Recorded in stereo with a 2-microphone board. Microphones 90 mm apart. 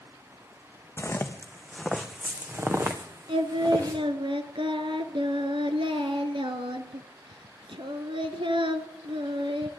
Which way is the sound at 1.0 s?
25° left (ahead or behind).